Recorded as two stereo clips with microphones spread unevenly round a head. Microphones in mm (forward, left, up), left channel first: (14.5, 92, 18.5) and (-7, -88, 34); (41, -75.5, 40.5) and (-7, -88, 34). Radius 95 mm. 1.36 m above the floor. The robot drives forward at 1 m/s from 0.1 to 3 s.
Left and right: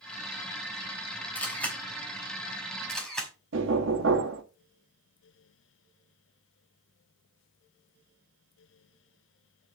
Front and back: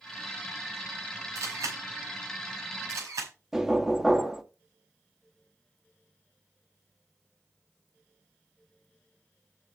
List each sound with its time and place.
1.4 s a camera shutter: 165° left, 3.5 m; by 3.3 s 170° left, 5.5 m
3.5 s knocking: 80° right, 1.6 m